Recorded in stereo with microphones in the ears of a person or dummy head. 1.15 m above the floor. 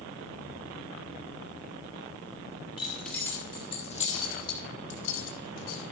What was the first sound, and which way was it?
Keys jangling, centre (ahead or behind).